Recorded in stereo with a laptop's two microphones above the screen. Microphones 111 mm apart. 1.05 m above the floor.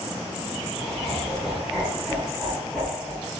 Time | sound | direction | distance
0.8 | laughter | 5° right (ahead or behind) | 6 m